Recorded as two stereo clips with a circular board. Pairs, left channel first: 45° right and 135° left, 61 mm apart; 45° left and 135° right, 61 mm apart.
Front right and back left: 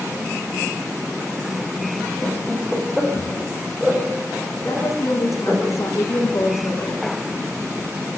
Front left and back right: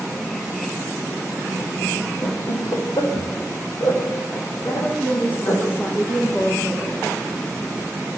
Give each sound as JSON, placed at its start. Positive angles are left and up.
{"t": 2.2, "sound": "laughter", "azimuth_deg": 45, "distance_m": 7.0}
{"t": 4.7, "sound": "a woman speaking", "azimuth_deg": -10, "distance_m": 7.0}